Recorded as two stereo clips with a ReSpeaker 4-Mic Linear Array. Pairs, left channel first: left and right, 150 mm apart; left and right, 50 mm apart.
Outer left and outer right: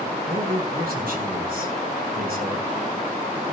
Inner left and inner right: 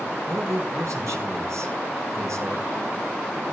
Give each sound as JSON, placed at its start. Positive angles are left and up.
{"t": 0.3, "sound": "a man speaking", "side_deg": -80, "distance_m": 6.5}